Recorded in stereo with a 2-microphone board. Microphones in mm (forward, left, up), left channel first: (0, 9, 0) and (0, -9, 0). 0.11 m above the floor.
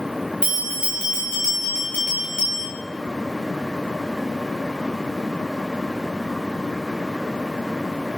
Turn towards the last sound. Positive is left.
turn(degrees=-75)  # may be behind; listen again after turning